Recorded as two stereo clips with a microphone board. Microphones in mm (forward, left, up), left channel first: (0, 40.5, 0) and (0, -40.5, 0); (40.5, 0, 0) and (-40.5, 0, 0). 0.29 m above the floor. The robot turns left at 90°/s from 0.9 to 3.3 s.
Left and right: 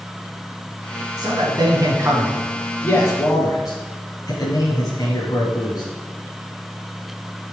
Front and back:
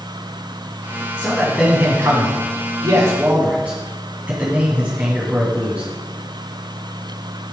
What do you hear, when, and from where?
1.2 s a man speaking: 55° right, 2 m; by 5.8 s 115° left, 2 m